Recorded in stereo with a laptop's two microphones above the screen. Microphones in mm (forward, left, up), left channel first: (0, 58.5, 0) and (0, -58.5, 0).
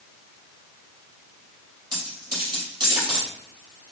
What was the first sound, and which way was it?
A dropped coin, 40° right (ahead or behind).